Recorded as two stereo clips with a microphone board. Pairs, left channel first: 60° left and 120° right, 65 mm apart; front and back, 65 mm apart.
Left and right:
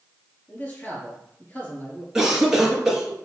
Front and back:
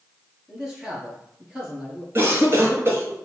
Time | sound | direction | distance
0.5 | a man speaking | 105° left | 2 m
2.1 | a cough | 165° left | 1.6 m